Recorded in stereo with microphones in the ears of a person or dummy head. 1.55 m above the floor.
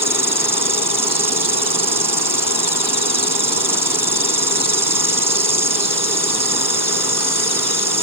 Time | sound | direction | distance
0.0 | an insect | 15° right (ahead or behind) | ?